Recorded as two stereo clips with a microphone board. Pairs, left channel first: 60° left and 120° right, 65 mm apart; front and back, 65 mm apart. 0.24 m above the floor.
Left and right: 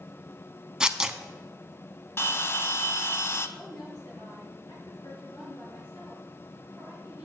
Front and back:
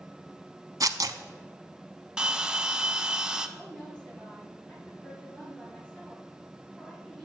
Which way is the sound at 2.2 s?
105° left.